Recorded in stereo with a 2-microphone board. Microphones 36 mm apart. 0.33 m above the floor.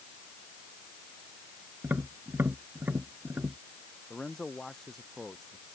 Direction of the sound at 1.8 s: 70° right (ahead or behind).